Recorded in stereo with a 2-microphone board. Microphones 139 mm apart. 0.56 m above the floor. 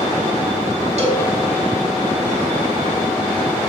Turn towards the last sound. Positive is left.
turn(degrees=-55)  # may be behind; listen again after turning